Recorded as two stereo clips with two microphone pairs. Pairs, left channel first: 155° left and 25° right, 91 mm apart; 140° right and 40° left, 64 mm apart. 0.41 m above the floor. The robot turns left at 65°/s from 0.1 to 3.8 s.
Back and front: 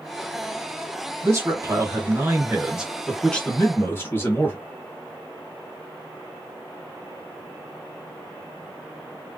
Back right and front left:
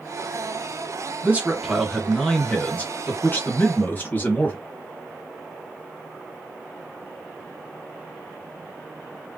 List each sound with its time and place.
1.2 s a man speaking: straight ahead, 1.1 m; by 4.6 s 165° right, 1.1 m